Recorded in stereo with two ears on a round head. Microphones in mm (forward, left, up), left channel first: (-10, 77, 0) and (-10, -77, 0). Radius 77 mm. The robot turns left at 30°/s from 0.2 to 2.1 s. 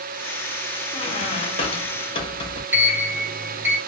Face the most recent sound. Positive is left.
turn(degrees=-10)  # may be behind; listen again after turning